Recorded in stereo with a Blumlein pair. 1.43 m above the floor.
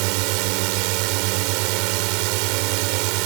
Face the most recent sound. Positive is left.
turn(degrees=-45)